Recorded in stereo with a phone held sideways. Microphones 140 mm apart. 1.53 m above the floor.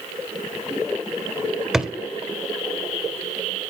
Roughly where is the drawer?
Centre.